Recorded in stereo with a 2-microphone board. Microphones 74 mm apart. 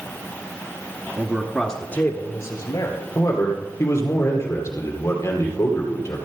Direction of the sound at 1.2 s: 25° right (ahead or behind).